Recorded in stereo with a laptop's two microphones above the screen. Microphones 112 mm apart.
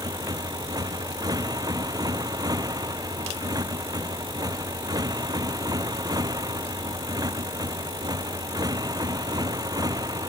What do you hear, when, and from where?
0.0 s a motorcycle: 35° right (ahead or behind)